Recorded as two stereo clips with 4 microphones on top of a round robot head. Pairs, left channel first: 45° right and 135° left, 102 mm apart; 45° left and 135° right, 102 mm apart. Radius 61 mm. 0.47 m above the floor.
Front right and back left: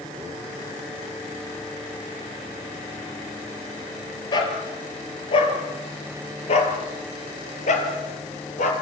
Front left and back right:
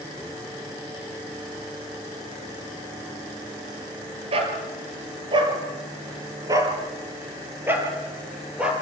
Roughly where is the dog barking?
Right.